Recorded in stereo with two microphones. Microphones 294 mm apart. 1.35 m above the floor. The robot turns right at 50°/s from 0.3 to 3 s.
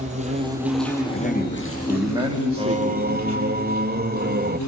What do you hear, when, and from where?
0.0 s an insect: 25° right, 6 m; by 4.7 s 110° left, 6 m
1.1 s a man speaking: 140° left, 3 m; by 3.4 s 125° right, 3 m
2.6 s singing: 15° right (ahead or behind), 0.8 m; by 4.6 s 30° right (ahead or behind), 0.8 m